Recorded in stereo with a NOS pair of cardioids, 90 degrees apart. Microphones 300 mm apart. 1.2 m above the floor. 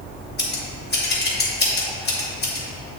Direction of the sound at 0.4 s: 35° left.